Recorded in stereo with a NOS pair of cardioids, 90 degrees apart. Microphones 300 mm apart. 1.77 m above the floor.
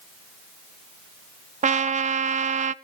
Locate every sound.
1.6 s a trumpet: 25° right, 0.7 m